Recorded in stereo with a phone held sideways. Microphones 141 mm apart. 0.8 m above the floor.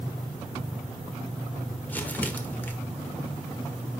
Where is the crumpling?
10° left (ahead or behind), 1.5 m.